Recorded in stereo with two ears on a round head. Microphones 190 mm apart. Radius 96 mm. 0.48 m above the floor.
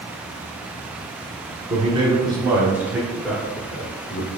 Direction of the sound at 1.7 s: 25° right (ahead or behind).